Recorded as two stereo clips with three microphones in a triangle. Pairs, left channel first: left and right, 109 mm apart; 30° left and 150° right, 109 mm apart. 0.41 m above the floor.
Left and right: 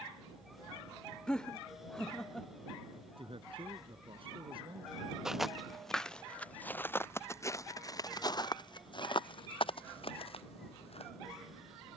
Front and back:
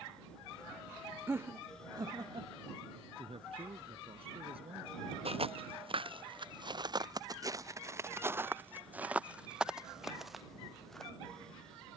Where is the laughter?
165° left; by 2.5 s 175° left.